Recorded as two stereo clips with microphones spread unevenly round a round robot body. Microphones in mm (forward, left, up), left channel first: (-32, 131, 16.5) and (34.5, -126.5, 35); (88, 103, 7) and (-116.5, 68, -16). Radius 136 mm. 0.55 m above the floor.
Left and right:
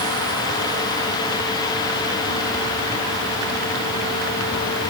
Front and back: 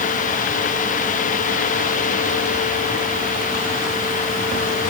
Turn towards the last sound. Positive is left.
No sound to turn to.